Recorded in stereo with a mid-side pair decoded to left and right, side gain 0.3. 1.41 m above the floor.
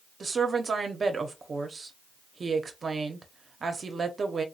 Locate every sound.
0.2 s a woman speaking: 50° right, 0.9 m